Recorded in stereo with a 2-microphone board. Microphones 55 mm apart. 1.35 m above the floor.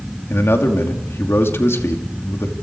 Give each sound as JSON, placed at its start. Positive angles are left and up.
{"t": 0.3, "sound": "a man speaking", "side_deg": 50, "distance_m": 2.5}